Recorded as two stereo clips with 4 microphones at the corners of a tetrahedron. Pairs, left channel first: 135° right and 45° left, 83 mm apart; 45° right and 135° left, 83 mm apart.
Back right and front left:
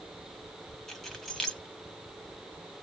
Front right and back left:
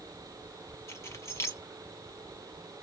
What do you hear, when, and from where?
0.9 s keys jangling: 50° right, 0.8 m